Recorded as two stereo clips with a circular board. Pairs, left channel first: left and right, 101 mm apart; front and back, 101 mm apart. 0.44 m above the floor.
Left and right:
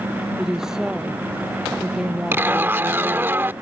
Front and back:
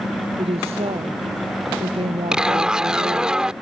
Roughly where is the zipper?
Right.